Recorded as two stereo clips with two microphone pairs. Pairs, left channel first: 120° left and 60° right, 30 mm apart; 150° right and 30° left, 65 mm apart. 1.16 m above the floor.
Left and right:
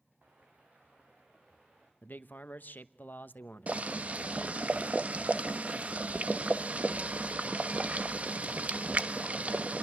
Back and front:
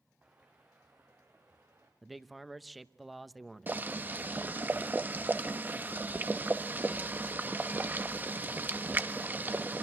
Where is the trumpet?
I don't hear a trumpet.